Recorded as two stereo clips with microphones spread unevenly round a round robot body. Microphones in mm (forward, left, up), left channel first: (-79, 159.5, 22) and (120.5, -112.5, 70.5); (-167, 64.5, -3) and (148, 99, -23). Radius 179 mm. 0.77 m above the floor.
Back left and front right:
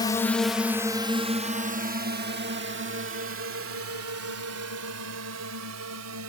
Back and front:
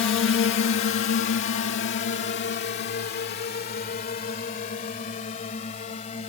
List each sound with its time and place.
0.0 s a drone: straight behind; by 6.3 s 100° right